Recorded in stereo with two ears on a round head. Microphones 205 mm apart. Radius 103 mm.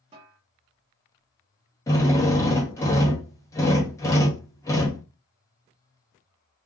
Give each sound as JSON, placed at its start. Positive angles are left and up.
{"t": 0.1, "sound": "a snare drum", "side_deg": -25, "distance_m": 1.4}
{"t": 1.9, "sound": "a drill", "side_deg": 15, "distance_m": 0.9}